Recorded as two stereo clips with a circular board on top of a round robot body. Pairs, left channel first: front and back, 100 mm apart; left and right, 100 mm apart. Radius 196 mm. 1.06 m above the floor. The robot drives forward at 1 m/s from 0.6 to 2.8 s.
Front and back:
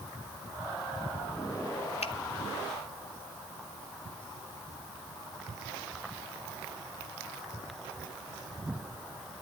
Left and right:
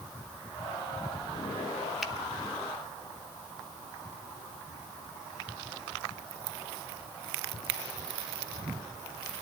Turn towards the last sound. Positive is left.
turn(degrees=-5)